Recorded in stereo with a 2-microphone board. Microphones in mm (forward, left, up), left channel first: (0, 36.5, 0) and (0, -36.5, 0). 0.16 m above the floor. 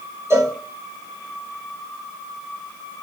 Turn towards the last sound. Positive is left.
turn(degrees=-35)  # may be behind; listen again after turning